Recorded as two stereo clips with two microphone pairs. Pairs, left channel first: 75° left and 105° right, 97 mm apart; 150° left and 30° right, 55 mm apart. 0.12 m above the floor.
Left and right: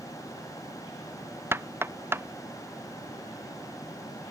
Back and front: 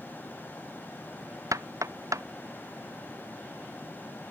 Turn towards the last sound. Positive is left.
turn(degrees=-35)